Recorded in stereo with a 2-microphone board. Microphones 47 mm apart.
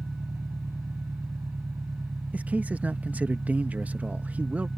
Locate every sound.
0.0 s an engine running: 85° right
2.3 s a man speaking: 30° right (ahead or behind)